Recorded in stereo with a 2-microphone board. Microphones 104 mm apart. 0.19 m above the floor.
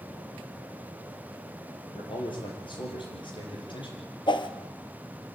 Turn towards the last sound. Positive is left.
turn(degrees=50)  # may be behind; listen again after turning